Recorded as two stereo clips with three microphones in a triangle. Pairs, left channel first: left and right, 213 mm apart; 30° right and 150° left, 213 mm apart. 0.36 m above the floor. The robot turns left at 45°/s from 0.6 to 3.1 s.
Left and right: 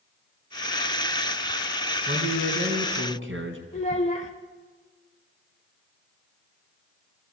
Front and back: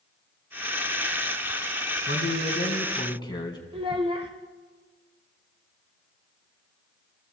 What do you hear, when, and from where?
2.1 s a man speaking: 50° right, 3.5 m; by 3.6 s 100° right, 3.5 m
3.7 s a child speaking: 110° left, 1.0 m